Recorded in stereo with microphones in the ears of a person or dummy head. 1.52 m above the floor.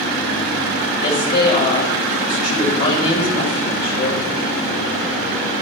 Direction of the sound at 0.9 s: 50° left (ahead or behind).